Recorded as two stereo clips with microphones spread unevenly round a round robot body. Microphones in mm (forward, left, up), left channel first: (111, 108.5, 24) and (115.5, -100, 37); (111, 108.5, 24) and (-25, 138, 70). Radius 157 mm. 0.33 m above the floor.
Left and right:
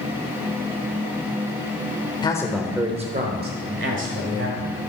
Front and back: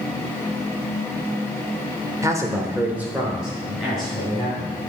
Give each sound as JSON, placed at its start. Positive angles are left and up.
{"t": 2.2, "sound": "a man speaking", "azimuth_deg": 85, "distance_m": 0.9}